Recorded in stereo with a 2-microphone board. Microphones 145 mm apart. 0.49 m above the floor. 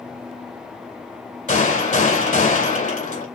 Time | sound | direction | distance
1.5 | a gunshot | 60° left (ahead or behind) | 2.5 m